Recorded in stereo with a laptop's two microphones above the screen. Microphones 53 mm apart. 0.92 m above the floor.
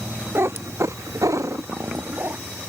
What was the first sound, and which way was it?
A cat meowing, 50° right (ahead or behind).